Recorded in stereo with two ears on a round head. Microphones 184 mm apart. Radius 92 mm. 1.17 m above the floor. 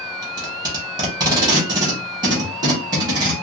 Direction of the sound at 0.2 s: 20° right (ahead or behind).